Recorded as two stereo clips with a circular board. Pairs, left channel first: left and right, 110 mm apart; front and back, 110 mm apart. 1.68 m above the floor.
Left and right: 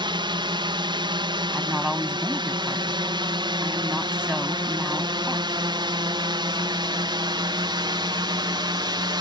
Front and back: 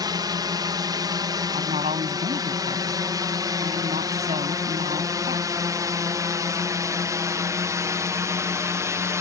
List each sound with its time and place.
0.0 s a drone: 130° right; by 9.2 s 125° right
1.5 s a woman speaking: 170° right